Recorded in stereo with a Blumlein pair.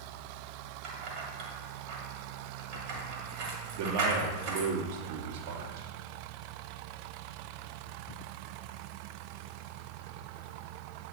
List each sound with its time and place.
0.8 s keys jangling: 40° right, 1.8 m
3.7 s a man speaking: 50° right, 1.3 m